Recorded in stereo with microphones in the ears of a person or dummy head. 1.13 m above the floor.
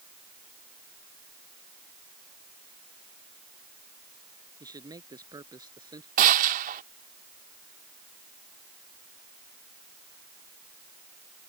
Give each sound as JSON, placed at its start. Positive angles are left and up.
{"t": 4.6, "sound": "a man speaking", "side_deg": -20}
{"t": 6.2, "sound": "a gunshot", "side_deg": -45}